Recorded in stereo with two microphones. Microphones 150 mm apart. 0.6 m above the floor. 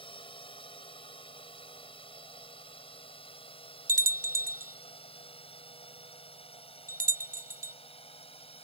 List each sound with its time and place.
0.0 s a drone: 35° left (ahead or behind); by 8.6 s 40° left (ahead or behind)
3.9 s a bell: 65° right (ahead or behind)